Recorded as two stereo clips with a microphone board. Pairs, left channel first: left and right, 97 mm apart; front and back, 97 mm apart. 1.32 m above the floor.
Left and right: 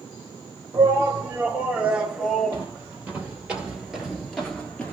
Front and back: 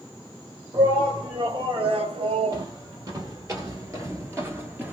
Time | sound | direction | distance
0.7 | a shout | 155° right | 1.7 m
2.5 | footsteps | 155° right | 2.0 m